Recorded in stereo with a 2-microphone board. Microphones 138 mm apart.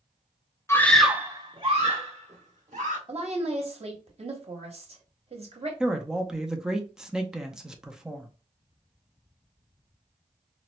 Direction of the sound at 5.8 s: 5° right (ahead or behind).